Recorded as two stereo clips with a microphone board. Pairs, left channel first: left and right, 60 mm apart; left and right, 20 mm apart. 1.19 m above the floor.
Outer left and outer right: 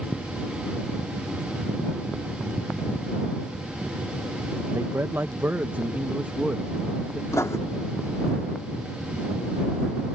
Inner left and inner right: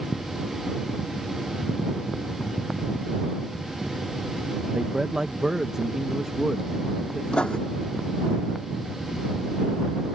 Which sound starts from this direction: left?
Writing, at 7.3 s.